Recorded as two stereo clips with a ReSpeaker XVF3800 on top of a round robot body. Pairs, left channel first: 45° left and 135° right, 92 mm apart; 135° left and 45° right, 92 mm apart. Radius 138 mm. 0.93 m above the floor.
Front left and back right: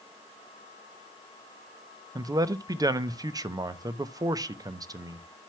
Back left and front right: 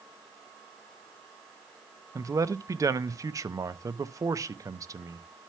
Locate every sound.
2.1 s a man speaking: 95° right, 0.8 m